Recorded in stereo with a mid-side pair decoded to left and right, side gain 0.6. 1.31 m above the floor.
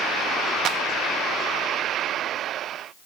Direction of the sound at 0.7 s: 55° right.